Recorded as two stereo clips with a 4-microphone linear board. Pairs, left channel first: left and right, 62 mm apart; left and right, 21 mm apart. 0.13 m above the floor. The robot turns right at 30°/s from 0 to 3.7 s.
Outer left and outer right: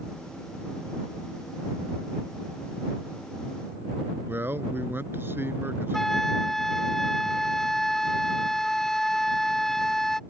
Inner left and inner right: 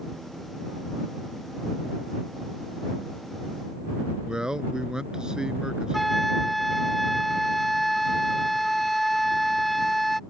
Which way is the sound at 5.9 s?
5° left (ahead or behind).